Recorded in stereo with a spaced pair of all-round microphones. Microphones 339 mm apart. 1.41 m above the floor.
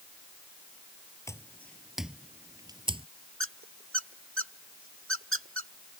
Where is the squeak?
40° right (ahead or behind).